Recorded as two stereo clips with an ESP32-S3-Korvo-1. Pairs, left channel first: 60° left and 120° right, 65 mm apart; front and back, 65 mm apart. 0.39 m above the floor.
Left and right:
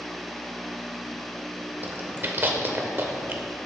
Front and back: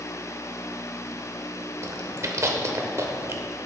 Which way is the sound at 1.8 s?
165° right.